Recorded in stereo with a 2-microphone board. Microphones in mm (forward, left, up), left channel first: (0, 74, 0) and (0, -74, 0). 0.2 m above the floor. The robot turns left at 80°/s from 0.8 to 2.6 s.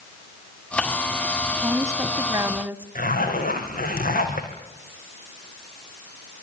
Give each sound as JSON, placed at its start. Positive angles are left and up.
{"t": 1.5, "sound": "a woman speaking", "side_deg": -20, "distance_m": 1.1}
{"t": 3.0, "sound": "a zipper", "side_deg": 75, "distance_m": 5.0}